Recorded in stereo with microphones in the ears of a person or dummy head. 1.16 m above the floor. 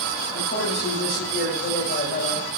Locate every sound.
0.3 s a man speaking: 55° left (ahead or behind), 8 m; by 2.5 s 40° left (ahead or behind), 6.5 m